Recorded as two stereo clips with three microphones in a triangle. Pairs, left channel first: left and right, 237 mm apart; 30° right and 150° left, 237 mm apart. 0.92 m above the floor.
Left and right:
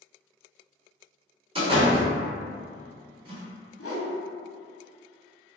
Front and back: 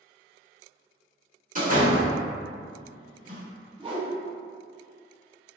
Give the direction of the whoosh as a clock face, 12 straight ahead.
9 o'clock.